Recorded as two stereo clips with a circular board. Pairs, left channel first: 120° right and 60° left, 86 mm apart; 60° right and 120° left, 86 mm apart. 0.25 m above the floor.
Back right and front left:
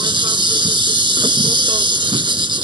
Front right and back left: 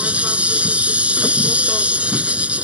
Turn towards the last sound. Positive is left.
turn(degrees=45)